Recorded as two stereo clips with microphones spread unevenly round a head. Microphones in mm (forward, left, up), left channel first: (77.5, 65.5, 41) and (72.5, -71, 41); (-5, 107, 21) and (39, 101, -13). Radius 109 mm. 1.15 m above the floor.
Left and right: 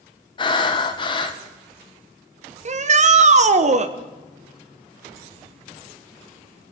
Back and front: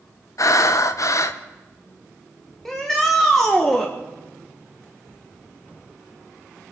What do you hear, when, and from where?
0.4 s breathing: 135° left, 1.0 m
2.6 s a shout: 75° right, 1.1 m